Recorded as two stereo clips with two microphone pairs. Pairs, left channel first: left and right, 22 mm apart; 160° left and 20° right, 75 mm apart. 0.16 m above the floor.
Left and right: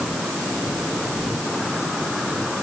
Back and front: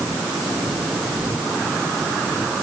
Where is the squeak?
I don't hear a squeak.